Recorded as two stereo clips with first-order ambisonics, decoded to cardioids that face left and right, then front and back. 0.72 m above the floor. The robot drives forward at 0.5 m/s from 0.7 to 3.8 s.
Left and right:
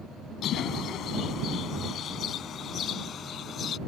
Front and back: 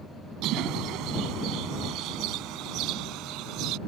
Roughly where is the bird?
Behind left.